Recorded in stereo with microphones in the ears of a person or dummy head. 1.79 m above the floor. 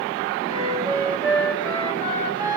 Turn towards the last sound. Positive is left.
turn(degrees=-20)  # may be behind; listen again after turning